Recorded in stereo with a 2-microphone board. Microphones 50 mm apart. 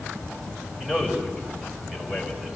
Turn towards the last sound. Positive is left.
turn(degrees=-10)  # may be behind; listen again after turning